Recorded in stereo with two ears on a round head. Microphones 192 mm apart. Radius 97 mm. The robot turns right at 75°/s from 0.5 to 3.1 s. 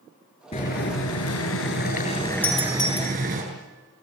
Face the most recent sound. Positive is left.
turn(degrees=55)  # may be behind; listen again after turning